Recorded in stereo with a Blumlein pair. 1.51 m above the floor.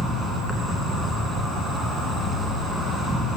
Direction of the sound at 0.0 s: Straight ahead.